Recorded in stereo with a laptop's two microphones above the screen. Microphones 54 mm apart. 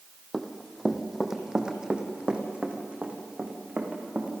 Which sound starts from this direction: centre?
Running footsteps, at 0.3 s.